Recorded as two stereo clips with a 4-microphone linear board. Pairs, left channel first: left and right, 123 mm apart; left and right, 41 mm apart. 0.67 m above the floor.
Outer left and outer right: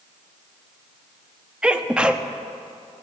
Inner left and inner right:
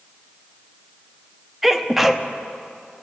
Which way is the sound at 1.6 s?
10° right (ahead or behind).